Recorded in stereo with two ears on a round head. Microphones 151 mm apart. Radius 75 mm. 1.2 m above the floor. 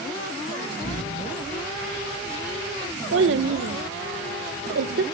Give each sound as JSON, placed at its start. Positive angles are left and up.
{"t": 0.8, "sound": "an explosion", "side_deg": 70, "distance_m": 7.0}
{"t": 3.1, "sound": "a child speaking", "side_deg": -80, "distance_m": 0.6}